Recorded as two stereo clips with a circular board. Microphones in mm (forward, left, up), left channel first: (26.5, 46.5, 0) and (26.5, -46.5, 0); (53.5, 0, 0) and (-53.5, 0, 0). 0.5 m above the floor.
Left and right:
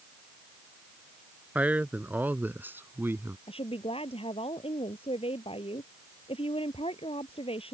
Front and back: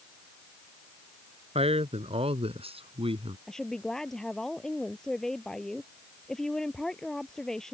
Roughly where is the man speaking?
Behind.